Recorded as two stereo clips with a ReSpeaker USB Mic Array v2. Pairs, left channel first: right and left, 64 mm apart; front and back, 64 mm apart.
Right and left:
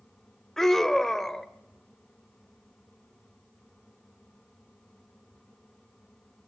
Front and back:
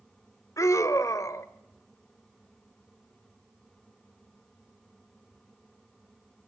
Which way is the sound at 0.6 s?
5° right.